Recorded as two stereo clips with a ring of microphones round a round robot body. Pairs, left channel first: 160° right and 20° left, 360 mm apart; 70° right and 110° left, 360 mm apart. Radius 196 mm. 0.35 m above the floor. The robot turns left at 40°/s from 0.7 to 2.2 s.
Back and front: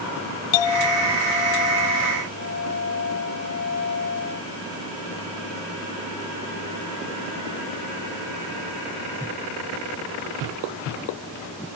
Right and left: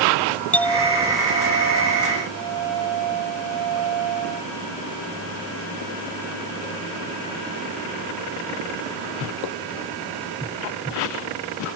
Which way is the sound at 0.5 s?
155° right.